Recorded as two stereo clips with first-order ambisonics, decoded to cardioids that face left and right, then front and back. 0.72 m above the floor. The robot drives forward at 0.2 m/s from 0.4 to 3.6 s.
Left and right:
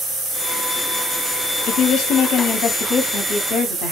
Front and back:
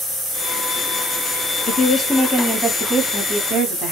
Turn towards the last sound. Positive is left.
turn(degrees=115)